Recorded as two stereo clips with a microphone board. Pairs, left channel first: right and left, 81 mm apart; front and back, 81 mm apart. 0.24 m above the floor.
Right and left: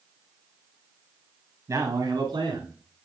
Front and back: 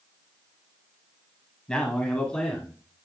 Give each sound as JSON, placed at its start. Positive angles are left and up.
{"t": 1.7, "sound": "a man speaking", "azimuth_deg": 75, "distance_m": 1.2}